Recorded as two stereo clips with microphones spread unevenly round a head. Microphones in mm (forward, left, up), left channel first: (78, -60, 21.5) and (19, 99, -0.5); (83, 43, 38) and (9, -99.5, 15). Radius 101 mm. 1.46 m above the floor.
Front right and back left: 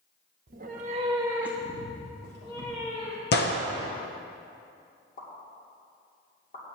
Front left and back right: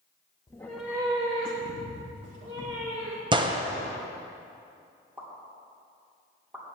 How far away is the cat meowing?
About 1.0 m.